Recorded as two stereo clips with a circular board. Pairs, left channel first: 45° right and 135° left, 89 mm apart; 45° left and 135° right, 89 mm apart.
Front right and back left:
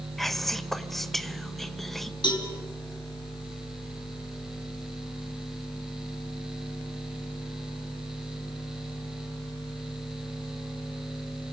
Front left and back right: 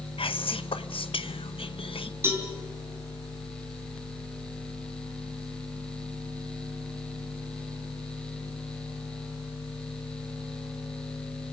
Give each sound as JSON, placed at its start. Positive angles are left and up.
{"t": 0.2, "sound": "whispering", "azimuth_deg": 45, "distance_m": 1.1}
{"t": 2.2, "sound": "a cowbell", "azimuth_deg": -75, "distance_m": 4.5}